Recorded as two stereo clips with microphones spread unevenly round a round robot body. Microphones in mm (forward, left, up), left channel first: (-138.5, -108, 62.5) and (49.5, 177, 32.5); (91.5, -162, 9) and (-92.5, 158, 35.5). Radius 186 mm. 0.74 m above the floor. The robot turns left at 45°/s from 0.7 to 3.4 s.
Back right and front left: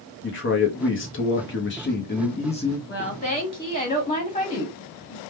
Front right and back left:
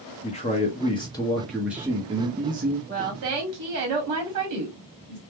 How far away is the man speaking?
About 0.9 m.